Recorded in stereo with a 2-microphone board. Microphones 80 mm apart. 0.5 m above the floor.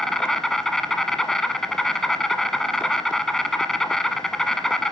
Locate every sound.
0.0 s an insect: 5° left (ahead or behind), 1.1 m